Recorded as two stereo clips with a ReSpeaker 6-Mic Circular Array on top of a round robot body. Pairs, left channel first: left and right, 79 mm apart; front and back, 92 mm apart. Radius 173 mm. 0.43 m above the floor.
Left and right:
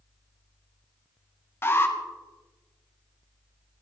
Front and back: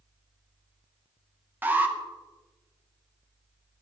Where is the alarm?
125° left, 2.5 m.